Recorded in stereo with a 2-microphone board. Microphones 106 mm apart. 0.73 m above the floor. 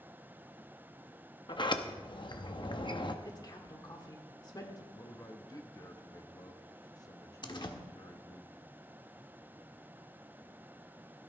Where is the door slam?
45° left (ahead or behind), 1.1 m.